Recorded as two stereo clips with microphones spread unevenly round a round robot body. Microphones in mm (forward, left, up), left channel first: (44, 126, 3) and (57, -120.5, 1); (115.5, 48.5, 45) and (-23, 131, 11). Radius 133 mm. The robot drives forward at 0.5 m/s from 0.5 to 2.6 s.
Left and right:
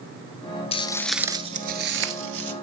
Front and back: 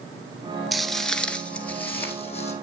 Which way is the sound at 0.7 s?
45° left.